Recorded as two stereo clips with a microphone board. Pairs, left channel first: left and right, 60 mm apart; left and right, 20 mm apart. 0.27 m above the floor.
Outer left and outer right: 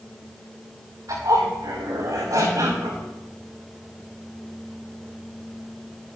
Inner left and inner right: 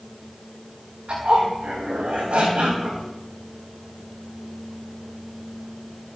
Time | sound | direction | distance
1.1 | a zipper | 75° right (ahead or behind) | 6 m